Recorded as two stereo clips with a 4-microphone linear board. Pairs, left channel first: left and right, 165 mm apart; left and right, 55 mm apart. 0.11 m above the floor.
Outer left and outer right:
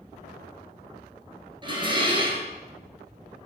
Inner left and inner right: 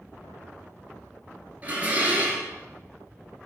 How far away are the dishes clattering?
About 1.3 m.